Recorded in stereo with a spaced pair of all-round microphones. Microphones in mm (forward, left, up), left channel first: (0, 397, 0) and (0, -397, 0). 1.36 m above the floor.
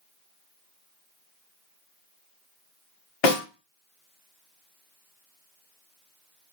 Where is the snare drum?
75° left (ahead or behind), 1.2 m.